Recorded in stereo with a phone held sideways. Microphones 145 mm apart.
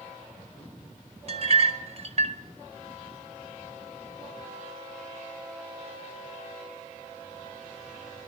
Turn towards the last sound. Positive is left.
turn(degrees=-45)  # may be behind; listen again after turning